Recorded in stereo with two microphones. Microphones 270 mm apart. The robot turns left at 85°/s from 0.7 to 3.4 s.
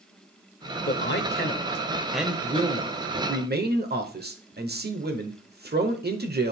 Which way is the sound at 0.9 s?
110° left.